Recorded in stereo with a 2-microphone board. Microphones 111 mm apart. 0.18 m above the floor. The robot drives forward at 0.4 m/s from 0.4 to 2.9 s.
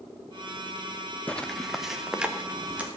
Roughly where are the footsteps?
Centre.